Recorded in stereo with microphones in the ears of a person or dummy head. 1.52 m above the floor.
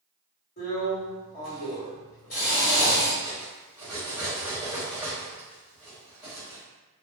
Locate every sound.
0.6 s a drill: 40° left (ahead or behind), 1.4 m
3.2 s cutlery clinking: 5° right (ahead or behind), 1.2 m